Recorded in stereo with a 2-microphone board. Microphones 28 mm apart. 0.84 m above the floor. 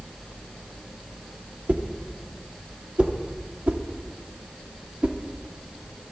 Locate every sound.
1.7 s a whoosh: 60° right (ahead or behind), 0.9 m